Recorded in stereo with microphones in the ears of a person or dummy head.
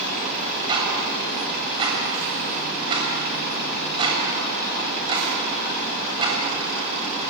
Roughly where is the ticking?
Right.